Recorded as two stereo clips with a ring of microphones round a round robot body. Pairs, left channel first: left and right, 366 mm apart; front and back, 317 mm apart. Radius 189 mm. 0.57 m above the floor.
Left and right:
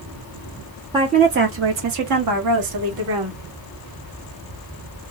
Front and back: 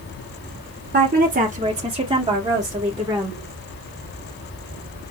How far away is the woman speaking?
About 0.7 m.